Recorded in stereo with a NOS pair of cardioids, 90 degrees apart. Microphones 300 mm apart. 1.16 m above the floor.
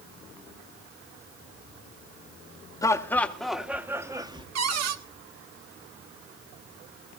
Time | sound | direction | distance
2.8 | laughter | 10° left | 1.8 m
4.5 | a cupboard door | 60° right | 1.6 m